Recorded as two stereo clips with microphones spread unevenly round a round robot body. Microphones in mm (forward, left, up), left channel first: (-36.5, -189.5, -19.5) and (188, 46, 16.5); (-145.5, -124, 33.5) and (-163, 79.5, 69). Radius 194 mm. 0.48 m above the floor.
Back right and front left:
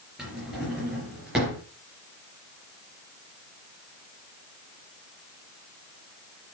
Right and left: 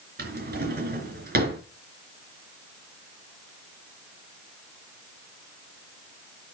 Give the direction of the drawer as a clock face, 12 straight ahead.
8 o'clock.